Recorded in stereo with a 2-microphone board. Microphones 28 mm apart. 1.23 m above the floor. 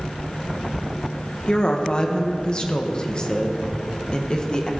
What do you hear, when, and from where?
1.5 s a woman speaking: 30° left (ahead or behind), 1.1 m